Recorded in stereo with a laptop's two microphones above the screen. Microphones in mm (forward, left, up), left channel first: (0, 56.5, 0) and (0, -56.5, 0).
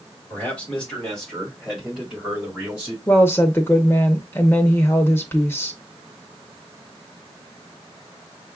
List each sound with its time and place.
0.3 s a man speaking: 15° left (ahead or behind), 1.8 m; by 3.0 s 10° right (ahead or behind), 3 m
3.1 s a woman speaking: 20° left (ahead or behind), 0.7 m